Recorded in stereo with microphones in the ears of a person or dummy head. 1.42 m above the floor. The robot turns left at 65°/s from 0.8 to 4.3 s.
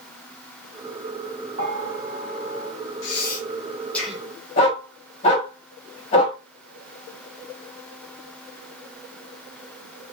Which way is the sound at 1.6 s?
50° right (ahead or behind).